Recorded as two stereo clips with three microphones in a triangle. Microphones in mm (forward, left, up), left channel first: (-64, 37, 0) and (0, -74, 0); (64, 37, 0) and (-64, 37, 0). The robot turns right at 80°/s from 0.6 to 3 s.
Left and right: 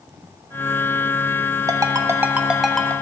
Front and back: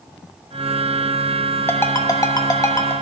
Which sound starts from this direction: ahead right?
A ringtone, at 1.7 s.